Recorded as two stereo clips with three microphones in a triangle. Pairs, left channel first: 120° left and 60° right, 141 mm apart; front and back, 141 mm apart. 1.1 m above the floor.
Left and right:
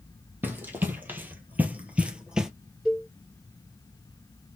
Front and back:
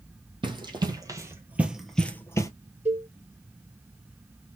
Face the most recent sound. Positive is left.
turn(degrees=-145)